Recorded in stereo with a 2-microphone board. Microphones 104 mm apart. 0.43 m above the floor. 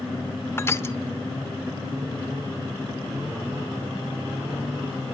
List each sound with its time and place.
0.6 s crushing: 25° left (ahead or behind), 1.0 m